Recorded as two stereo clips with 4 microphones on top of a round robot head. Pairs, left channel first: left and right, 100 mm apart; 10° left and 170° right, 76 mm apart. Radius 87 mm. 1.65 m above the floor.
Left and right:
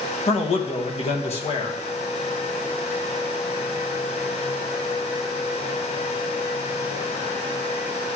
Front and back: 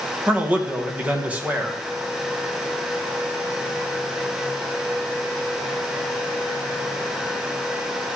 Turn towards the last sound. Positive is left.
turn(degrees=120)